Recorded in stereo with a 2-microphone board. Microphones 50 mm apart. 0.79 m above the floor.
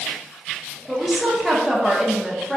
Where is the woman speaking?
5° right (ahead or behind), 0.5 m.